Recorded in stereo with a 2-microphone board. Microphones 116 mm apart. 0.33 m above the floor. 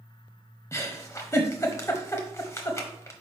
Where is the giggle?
25° left (ahead or behind), 1.0 m.